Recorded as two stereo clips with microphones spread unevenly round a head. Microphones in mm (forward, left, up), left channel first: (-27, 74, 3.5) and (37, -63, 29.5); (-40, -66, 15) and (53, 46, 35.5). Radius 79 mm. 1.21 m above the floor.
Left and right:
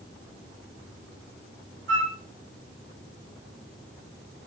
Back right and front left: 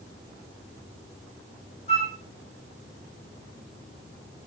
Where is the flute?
80° right, 3 m.